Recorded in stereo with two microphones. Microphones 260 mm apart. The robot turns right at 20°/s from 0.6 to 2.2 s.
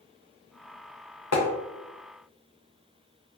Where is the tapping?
70° left (ahead or behind), 0.6 m.